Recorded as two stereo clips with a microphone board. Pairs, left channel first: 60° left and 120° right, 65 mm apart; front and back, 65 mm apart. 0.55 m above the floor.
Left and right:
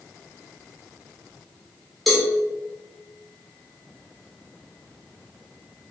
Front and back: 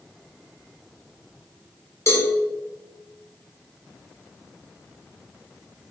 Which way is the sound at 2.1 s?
25° right.